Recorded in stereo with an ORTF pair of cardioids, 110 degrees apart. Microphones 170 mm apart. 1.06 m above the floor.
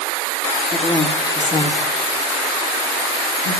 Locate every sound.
0.7 s a woman speaking: 15° left, 2 m; by 3.6 s 60° left, 1.9 m